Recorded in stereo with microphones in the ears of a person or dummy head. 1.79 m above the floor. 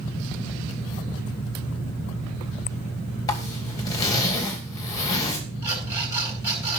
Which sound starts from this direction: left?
A zipper, at 3.3 s.